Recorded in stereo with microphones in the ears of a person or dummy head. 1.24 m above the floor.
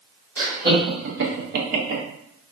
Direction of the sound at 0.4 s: 50° right (ahead or behind).